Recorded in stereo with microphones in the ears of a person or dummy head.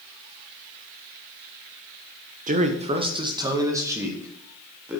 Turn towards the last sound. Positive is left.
turn(degrees=-10)  # may be behind; listen again after turning